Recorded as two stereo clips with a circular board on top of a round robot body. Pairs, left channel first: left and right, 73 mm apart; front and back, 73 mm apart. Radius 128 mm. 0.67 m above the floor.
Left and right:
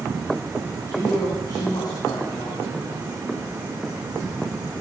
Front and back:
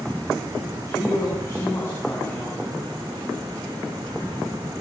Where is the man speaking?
45° left, 5.5 m; by 2.9 s 65° left, 6.5 m.